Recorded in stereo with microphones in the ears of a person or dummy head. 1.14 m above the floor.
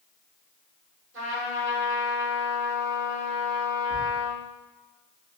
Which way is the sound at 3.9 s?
60° right (ahead or behind).